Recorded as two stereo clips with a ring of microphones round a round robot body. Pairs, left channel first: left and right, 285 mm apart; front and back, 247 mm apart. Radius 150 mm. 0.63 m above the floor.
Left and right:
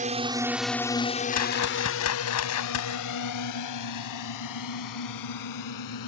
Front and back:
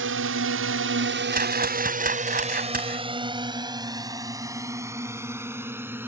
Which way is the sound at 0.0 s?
150° right.